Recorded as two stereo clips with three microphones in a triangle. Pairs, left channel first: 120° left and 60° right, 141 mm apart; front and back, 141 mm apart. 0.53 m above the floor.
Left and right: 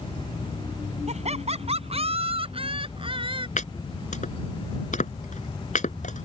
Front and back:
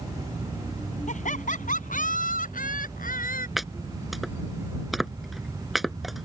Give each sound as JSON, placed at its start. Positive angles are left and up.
{"t": 1.1, "sound": "laughter", "azimuth_deg": -25}
{"t": 3.6, "sound": "chopping", "azimuth_deg": 90}